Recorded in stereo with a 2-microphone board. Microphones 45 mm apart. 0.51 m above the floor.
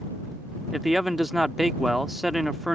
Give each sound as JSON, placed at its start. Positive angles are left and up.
{"t": 0.7, "sound": "a man speaking", "side_deg": -5}